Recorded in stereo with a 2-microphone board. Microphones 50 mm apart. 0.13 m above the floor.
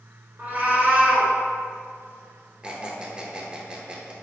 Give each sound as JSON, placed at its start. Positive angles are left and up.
{"t": 0.4, "sound": "a cat meowing", "side_deg": -40, "distance_m": 0.8}
{"t": 2.6, "sound": "a squeak", "side_deg": -25, "distance_m": 0.8}